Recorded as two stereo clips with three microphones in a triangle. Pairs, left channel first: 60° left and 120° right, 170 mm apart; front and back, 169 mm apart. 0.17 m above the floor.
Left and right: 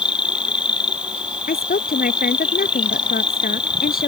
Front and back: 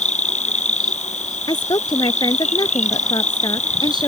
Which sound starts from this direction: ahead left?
A woman speaking, at 1.5 s.